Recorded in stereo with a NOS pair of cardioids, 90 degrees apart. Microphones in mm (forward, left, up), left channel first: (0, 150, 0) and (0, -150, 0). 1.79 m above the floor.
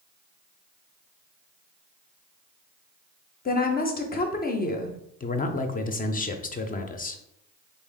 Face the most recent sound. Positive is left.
turn(degrees=30)